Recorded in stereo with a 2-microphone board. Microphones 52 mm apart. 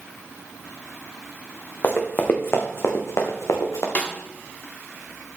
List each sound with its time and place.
1.8 s running footsteps: 35° left (ahead or behind), 2 m; by 3.9 s 80° left, 2 m
4.0 s a snare drum: 30° left (ahead or behind), 1.3 m